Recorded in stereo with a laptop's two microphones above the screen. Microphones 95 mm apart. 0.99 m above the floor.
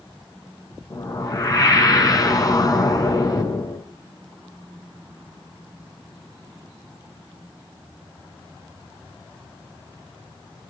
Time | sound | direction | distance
0.9 | a whoosh | 40° left (ahead or behind) | 5.5 m